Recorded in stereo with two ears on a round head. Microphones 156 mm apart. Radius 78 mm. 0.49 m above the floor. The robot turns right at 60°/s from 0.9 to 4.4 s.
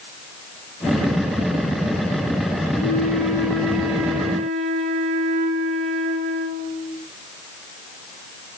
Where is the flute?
120° left, 9 m; by 7.0 s 145° right, 9 m.